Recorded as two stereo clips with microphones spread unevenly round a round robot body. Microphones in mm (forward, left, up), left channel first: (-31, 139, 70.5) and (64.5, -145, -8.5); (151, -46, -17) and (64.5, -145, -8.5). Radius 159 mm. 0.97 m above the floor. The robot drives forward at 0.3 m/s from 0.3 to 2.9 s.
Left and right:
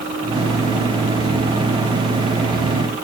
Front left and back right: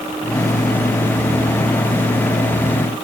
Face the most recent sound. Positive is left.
No sound to turn to.